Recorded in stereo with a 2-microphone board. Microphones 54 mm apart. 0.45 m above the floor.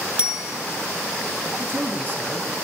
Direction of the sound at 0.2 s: 20° right (ahead or behind).